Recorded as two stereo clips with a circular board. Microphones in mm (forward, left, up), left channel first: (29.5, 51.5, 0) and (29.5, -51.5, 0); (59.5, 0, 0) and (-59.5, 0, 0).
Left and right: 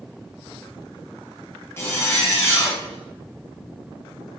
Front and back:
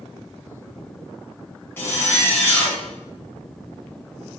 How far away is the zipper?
About 0.6 m.